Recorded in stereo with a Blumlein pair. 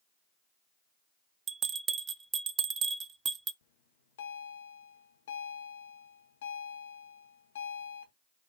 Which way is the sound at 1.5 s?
25° right.